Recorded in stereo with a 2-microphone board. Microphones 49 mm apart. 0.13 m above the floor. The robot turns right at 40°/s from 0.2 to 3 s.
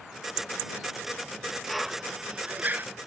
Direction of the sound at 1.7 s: Centre (ahead or behind).